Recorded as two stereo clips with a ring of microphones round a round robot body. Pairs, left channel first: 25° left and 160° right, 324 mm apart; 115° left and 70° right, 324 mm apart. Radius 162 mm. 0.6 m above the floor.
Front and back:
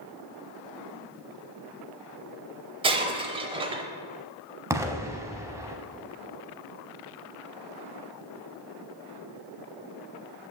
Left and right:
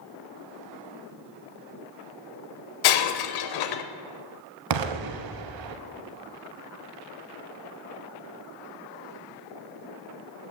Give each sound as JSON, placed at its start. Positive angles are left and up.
{"t": 2.8, "sound": "breaking glass", "azimuth_deg": 130, "distance_m": 0.6}
{"t": 4.7, "sound": "an explosion", "azimuth_deg": -75, "distance_m": 0.7}